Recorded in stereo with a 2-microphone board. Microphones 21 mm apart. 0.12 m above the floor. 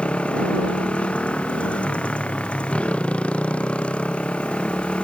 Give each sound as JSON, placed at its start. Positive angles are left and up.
{"t": 0.0, "sound": "a motorcycle", "side_deg": 80}